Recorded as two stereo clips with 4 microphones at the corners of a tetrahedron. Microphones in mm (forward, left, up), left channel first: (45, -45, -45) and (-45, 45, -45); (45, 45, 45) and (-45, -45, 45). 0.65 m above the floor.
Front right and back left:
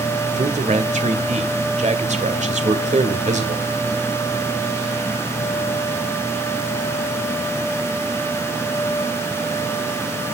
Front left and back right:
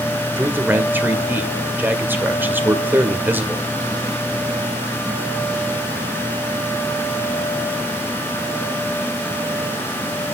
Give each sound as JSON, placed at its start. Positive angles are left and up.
{"t": 0.4, "sound": "a man speaking", "azimuth_deg": 150, "distance_m": 2.0}